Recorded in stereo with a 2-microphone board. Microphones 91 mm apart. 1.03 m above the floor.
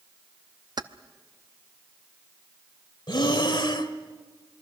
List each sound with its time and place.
0.8 s keys jangling: 45° right (ahead or behind), 0.7 m
3.1 s breathing: 55° left (ahead or behind), 1.2 m